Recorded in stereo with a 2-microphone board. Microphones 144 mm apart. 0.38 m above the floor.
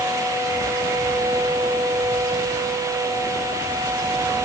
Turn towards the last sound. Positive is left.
No sound to turn to.